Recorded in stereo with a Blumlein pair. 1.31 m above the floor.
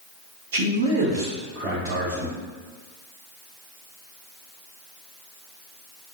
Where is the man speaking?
50° right, 1.2 m.